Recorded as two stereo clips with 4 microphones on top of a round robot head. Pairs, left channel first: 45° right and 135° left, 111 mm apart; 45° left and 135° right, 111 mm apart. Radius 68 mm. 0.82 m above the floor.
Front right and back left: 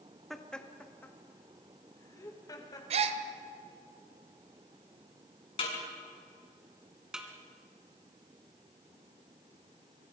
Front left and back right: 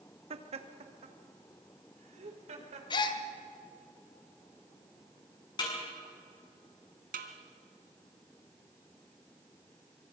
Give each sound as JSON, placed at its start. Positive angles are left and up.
{"t": 0.3, "sound": "laughter", "azimuth_deg": -135, "distance_m": 1.7}
{"t": 2.9, "sound": "a gasp", "azimuth_deg": 100, "distance_m": 1.4}
{"t": 5.6, "sound": "a snare drum", "azimuth_deg": -5, "distance_m": 7.0}
{"t": 7.1, "sound": "a snare drum", "azimuth_deg": -140, "distance_m": 2.0}